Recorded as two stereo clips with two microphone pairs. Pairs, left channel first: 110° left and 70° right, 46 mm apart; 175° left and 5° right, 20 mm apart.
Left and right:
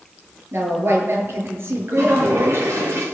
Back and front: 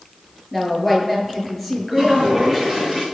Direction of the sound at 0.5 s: 100° right.